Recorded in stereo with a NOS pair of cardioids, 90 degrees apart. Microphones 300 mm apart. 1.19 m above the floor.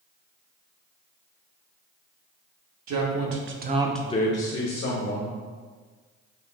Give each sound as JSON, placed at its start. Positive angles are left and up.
{"t": 2.9, "sound": "a man speaking", "azimuth_deg": -65, "distance_m": 1.3}